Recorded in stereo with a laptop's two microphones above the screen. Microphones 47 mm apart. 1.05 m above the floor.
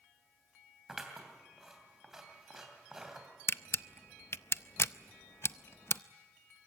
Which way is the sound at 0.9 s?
10° right (ahead or behind).